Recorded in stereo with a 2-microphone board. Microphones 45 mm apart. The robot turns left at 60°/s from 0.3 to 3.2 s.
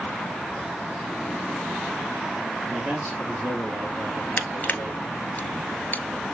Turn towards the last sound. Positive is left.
turn(degrees=45)  # may be behind; listen again after turning